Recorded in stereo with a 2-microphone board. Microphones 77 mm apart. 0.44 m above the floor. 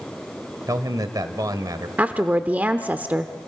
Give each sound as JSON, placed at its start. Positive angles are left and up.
{"t": 0.7, "sound": "a man speaking", "side_deg": -50, "distance_m": 1.4}
{"t": 2.0, "sound": "a woman speaking", "side_deg": -20, "distance_m": 0.8}